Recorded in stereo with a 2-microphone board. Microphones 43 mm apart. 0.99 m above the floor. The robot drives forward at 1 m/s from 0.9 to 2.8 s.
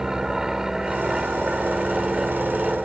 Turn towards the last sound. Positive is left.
turn(degrees=-15)  # may be behind; listen again after turning